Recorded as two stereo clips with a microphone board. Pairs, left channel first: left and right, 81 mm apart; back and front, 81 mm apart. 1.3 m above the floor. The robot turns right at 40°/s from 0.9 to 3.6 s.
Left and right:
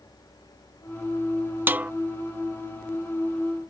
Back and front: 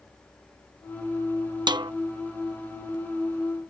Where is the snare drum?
25° right; by 1.9 s 15° right.